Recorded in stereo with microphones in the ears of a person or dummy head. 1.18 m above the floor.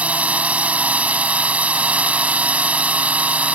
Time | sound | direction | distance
0.0 | a drone | 5° right (ahead or behind) | ?